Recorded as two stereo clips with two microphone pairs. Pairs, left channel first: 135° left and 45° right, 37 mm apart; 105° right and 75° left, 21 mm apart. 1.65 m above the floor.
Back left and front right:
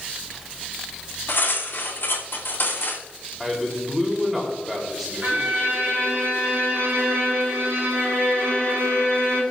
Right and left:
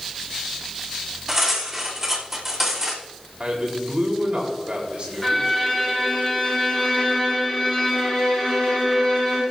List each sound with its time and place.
1.3 s cutlery clinking: 160° left, 3 m
3.4 s a man speaking: 45° left, 4 m
5.2 s a violin: 20° right, 6.5 m